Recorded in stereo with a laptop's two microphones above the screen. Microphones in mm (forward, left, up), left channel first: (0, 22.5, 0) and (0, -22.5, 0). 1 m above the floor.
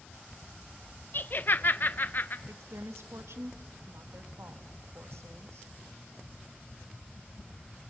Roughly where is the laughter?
Left.